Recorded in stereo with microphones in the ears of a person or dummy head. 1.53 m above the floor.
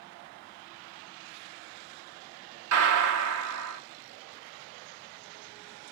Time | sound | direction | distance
2.7 | a gunshot | 65° right (ahead or behind) | 1.0 m